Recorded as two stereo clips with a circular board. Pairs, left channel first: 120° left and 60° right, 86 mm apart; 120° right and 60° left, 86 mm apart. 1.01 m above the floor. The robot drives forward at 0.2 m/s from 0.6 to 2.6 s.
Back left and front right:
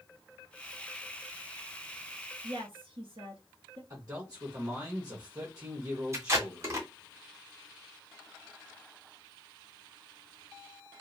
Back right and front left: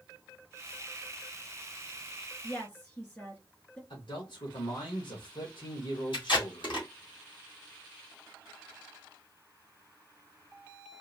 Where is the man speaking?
105° right, 1.2 m.